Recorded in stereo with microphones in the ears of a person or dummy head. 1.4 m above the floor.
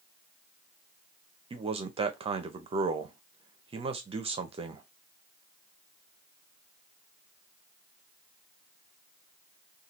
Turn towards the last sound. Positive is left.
turn(degrees=-30)  # may be behind; listen again after turning